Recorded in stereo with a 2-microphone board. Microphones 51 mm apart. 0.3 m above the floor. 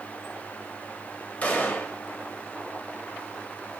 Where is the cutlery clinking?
No cutlery clinking in this recording.